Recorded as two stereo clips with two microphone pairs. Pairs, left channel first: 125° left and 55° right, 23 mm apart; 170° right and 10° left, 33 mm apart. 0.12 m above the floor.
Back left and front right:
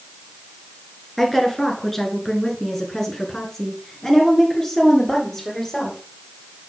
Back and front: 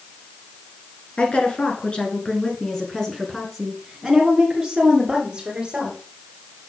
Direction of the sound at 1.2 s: 160° right.